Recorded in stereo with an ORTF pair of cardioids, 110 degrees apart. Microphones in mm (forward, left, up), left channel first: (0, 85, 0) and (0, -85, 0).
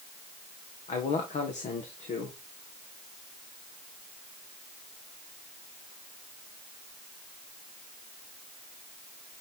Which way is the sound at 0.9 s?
45° left.